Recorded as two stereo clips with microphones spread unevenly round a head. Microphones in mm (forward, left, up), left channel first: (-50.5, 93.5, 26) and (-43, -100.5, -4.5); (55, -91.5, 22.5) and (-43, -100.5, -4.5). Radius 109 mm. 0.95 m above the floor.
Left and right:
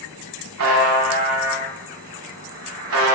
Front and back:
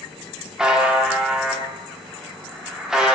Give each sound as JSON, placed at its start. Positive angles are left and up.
{"t": 0.6, "sound": "a buzzer", "azimuth_deg": -90, "distance_m": 1.3}